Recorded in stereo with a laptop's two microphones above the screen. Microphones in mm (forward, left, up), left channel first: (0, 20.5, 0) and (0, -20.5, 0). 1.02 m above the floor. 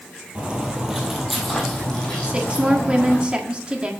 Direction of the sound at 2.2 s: 25° right (ahead or behind).